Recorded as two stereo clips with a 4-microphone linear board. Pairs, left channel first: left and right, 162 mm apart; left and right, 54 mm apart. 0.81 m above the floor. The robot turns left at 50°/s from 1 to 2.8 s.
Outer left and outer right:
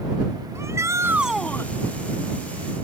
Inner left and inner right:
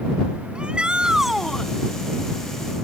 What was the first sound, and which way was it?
A shout, 165° right.